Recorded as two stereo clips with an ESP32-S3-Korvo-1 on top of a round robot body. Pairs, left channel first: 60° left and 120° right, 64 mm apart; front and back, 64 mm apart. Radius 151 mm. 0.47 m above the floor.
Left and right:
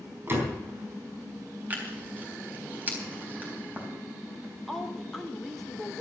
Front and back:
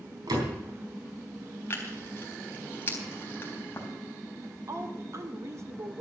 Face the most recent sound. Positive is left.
turn(degrees=145)